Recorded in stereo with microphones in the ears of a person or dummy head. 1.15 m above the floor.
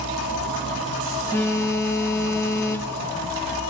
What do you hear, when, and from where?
1.3 s a phone buzzing: 20° left (ahead or behind), 0.5 m